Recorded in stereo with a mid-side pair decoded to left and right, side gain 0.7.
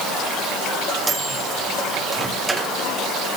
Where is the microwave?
15° right, 2 m.